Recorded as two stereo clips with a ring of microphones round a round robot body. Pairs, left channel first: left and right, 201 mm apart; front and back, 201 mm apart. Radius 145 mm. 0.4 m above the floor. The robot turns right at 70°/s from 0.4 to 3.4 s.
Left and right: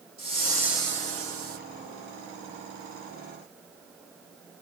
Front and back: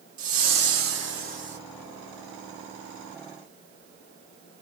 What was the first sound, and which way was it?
A whoosh, straight behind.